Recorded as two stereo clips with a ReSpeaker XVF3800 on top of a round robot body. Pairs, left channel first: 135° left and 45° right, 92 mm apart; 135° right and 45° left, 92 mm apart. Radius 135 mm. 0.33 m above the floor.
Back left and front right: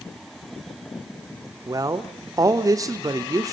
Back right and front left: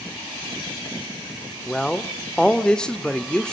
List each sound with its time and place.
1.7 s a man speaking: 60° right, 1.5 m